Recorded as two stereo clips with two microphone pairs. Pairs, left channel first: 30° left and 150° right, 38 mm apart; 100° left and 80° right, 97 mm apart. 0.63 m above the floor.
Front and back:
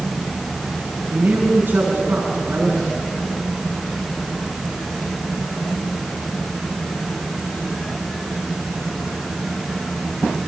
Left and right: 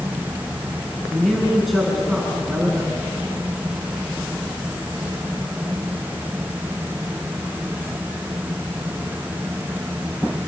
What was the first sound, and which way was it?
A man speaking, 175° right.